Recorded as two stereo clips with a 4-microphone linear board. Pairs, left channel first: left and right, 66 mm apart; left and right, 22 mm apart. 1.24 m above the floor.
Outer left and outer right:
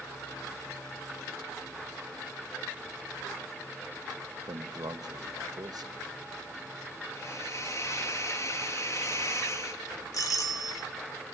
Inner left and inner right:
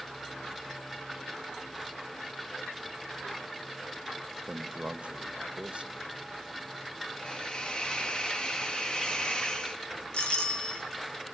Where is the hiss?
50° left (ahead or behind), 2 m.